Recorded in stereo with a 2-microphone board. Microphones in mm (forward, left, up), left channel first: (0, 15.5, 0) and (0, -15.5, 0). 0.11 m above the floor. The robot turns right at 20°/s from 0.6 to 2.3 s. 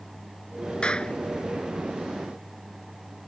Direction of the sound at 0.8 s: 35° left (ahead or behind).